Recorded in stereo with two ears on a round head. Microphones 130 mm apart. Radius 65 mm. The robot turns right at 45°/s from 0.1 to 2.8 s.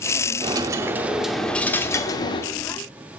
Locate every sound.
0.4 s a dropped coin: 40° right, 0.6 m; by 2.5 s 50° left, 0.6 m